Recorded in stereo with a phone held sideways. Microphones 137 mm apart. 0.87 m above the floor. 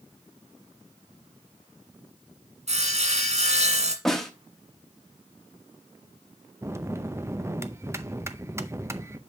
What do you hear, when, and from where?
2.7 s sawing: 55° right (ahead or behind), 1.7 m
4.0 s a snare drum: centre (ahead or behind), 1.1 m
6.6 s a bell: 20° right (ahead or behind), 0.5 m